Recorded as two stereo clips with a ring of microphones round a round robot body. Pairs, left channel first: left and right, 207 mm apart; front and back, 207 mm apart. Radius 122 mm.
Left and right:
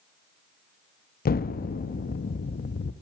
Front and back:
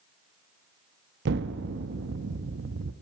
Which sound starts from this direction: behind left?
An explosion, at 1.2 s.